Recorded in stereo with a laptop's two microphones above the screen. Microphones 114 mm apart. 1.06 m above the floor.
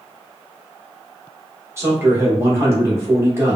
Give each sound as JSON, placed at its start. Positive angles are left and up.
{"t": 1.8, "sound": "a man speaking", "side_deg": -25, "distance_m": 1.0}